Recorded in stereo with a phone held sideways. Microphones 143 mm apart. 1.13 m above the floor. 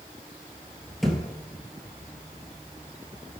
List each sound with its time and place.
1.0 s a thud: centre (ahead or behind), 2 m